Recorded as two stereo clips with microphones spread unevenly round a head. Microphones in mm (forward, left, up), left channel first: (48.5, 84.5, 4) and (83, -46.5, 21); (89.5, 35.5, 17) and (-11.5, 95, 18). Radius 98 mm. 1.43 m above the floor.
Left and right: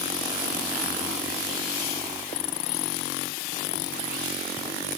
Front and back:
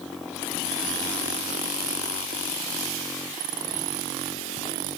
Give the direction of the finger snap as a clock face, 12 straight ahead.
I don't hear a finger snap.